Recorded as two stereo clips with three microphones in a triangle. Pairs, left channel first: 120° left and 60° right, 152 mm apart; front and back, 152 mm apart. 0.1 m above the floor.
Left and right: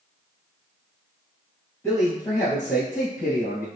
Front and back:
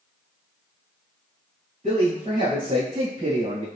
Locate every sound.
1.8 s a man speaking: 170° right, 1.9 m; by 3.6 s 135° left, 2.5 m